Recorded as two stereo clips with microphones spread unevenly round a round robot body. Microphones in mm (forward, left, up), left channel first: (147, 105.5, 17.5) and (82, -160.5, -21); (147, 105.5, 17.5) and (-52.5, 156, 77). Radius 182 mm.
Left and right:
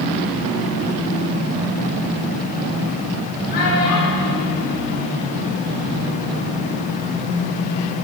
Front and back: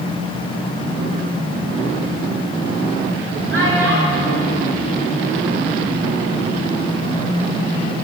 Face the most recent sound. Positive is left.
turn(degrees=150)